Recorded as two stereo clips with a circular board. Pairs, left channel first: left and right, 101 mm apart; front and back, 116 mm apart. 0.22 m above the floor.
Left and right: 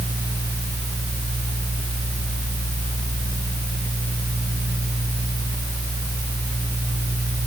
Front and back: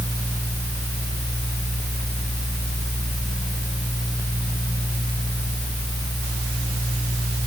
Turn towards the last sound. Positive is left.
No sound to turn to.